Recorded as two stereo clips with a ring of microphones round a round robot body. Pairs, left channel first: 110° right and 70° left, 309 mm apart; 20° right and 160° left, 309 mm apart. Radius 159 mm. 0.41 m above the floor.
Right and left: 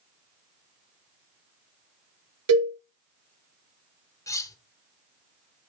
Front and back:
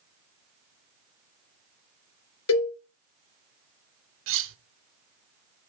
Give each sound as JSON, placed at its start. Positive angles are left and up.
{"t": 2.5, "sound": "a cowbell", "azimuth_deg": 25, "distance_m": 2.5}
{"t": 4.3, "sound": "cutlery clinking", "azimuth_deg": 170, "distance_m": 0.7}